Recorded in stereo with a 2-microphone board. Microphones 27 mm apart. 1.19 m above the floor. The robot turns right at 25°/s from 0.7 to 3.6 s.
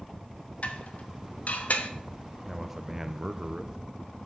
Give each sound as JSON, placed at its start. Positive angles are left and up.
{"t": 0.6, "sound": "dishes clattering", "side_deg": 60, "distance_m": 0.9}
{"t": 2.4, "sound": "a man speaking", "side_deg": -10, "distance_m": 0.6}